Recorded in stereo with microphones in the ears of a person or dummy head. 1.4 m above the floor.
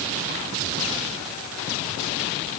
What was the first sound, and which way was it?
Only background noise.